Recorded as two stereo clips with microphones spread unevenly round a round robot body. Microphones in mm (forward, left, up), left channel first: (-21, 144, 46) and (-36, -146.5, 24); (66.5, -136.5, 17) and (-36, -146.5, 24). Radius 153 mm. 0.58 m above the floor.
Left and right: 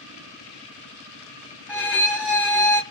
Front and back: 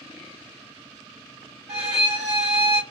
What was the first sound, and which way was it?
A violin, 175° right.